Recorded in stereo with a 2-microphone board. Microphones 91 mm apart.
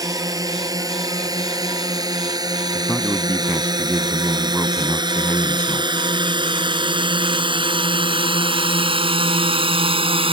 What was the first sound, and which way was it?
A drone, 40° right (ahead or behind).